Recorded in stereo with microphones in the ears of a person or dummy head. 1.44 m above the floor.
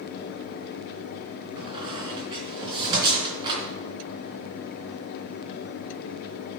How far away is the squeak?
About 3 m.